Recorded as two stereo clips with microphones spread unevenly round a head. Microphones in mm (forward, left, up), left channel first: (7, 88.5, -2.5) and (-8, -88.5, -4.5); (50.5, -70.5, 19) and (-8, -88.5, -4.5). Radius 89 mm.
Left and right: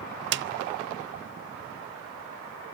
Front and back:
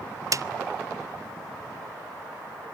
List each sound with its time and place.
0.3 s a snare drum: 120° right, 0.6 m